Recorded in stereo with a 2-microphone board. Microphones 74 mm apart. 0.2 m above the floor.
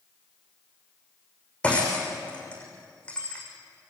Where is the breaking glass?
15° left (ahead or behind), 6.5 m.